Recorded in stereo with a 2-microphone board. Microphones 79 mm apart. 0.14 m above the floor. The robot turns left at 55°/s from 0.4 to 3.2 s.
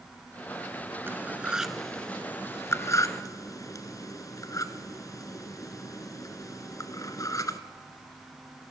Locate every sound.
1.1 s cutlery clinking: 25° right (ahead or behind), 1.1 m; by 7.6 s 45° left (ahead or behind), 1.1 m